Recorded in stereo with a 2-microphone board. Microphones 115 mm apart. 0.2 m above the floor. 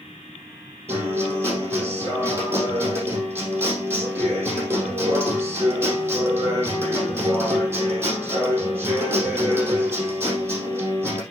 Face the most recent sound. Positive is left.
turn(degrees=-25)  # may be behind; listen again after turning